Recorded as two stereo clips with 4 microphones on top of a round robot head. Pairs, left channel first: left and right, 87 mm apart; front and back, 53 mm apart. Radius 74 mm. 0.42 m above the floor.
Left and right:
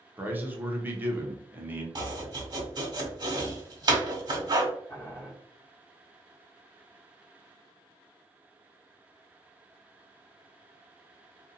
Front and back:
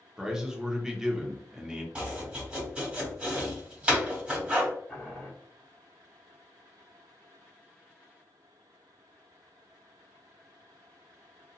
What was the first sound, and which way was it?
A man speaking, 115° right.